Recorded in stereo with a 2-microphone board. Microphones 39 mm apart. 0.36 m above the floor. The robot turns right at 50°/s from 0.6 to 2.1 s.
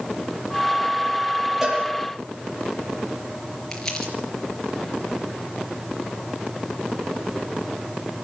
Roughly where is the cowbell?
Centre.